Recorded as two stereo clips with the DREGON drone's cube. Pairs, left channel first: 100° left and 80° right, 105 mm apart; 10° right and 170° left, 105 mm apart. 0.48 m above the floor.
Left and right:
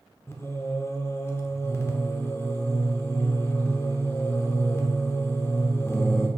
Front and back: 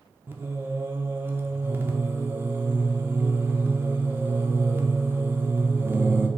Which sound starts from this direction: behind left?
Singing, at 0.3 s.